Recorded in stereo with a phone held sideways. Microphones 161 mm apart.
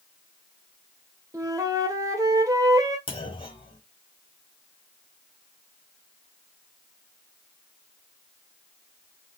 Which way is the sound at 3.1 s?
35° left (ahead or behind).